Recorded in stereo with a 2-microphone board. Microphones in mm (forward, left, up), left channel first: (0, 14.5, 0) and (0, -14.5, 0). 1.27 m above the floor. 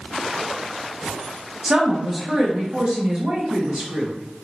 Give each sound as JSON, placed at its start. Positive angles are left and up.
{"t": 1.6, "sound": "a woman speaking", "side_deg": -40, "distance_m": 1.2}